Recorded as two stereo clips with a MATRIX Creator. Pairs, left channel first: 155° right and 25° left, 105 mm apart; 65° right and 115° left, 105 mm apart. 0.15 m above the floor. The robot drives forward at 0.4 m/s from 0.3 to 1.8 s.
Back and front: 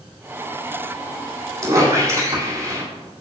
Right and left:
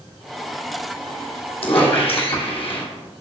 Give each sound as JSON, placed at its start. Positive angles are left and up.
{"t": 1.6, "sound": "a squeak", "azimuth_deg": -35, "distance_m": 2.5}